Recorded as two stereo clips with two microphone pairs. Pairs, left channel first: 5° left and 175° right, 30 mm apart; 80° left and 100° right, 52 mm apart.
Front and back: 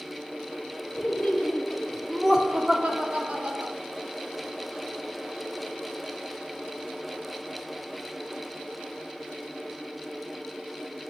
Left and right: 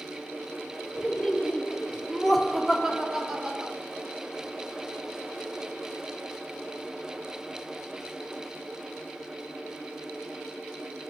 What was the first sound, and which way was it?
Laughter, 20° left.